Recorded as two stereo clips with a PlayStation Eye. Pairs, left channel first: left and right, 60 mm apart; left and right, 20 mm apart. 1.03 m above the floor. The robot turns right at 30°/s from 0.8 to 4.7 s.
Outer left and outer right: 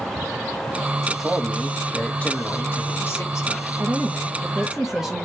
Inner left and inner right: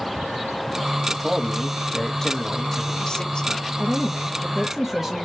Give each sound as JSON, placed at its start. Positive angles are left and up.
{"t": 1.1, "sound": "a man speaking", "azimuth_deg": -10, "distance_m": 0.9}
{"t": 3.8, "sound": "a woman speaking", "side_deg": -30, "distance_m": 0.7}